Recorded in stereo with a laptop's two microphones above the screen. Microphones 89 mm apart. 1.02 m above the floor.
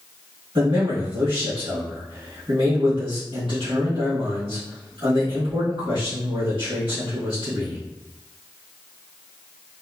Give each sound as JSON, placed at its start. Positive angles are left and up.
{"t": 0.6, "sound": "a man speaking", "side_deg": -65, "distance_m": 1.3}